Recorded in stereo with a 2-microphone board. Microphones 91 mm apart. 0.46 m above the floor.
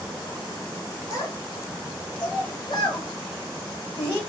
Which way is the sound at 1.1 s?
35° left (ahead or behind).